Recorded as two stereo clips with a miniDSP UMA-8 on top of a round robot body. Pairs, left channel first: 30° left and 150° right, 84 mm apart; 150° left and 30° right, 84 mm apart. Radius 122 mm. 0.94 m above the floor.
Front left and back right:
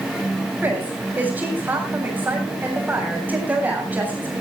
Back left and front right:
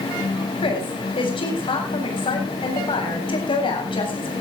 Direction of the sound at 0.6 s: 140° left.